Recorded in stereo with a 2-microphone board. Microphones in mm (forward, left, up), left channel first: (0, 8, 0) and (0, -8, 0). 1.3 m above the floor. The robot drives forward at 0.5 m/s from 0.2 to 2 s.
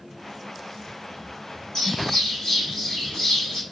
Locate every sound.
1.8 s a bird: 80° left, 2.5 m